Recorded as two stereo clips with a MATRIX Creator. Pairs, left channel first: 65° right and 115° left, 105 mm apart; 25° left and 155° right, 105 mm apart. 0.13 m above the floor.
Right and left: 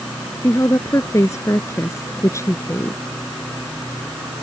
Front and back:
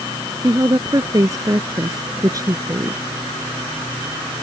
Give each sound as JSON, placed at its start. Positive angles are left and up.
{"t": 0.4, "sound": "a woman speaking", "azimuth_deg": -115}